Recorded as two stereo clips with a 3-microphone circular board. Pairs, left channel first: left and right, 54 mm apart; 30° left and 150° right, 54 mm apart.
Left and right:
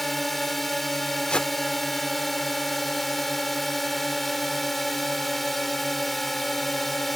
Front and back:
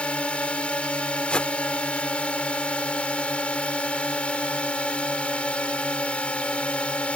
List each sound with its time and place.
0.0 s a drone: 5° left
1.3 s a whoosh: 55° left